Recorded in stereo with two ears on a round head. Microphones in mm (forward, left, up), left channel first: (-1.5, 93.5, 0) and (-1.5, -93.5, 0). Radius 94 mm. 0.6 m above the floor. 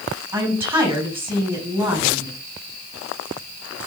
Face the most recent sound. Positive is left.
turn(degrees=-10)  # may be behind; listen again after turning